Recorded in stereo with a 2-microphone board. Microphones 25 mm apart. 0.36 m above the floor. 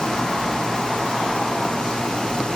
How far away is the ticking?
I don't hear ticking.